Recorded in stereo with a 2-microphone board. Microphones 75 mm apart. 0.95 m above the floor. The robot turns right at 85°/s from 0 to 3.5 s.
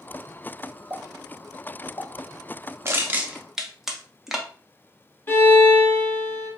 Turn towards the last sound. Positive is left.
turn(degrees=30)  # may be behind; listen again after turning